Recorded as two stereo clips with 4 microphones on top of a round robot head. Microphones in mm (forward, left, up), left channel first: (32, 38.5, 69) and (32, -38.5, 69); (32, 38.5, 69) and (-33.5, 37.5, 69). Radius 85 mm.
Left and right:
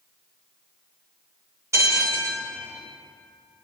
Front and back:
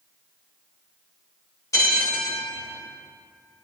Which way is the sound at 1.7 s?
45° right.